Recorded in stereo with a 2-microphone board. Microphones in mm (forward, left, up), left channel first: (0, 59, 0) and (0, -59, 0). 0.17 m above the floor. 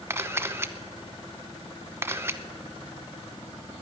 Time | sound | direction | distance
0.1 | a camera shutter | 20° right (ahead or behind) | 0.7 m